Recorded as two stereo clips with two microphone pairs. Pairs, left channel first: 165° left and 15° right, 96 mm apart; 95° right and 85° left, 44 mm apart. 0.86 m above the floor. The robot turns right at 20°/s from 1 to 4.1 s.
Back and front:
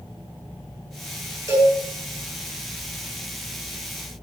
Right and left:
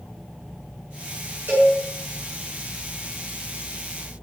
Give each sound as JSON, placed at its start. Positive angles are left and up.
{"t": 1.5, "sound": "a cowbell", "azimuth_deg": 40, "distance_m": 7.0}